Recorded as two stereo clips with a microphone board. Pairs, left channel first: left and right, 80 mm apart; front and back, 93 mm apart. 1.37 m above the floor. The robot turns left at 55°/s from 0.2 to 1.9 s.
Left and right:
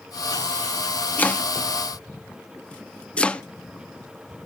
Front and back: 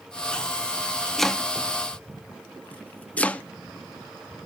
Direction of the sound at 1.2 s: 85° left.